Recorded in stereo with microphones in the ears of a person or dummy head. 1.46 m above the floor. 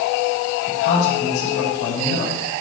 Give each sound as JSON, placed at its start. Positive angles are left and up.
{"t": 0.7, "sound": "a man speaking", "side_deg": 45, "distance_m": 5.0}